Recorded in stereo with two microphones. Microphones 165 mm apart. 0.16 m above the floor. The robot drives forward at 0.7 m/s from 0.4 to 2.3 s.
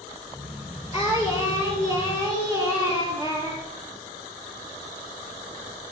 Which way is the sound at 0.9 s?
40° left (ahead or behind).